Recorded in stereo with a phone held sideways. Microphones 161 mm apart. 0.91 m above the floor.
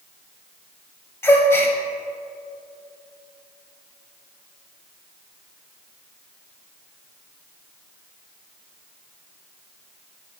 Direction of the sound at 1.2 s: 15° left (ahead or behind).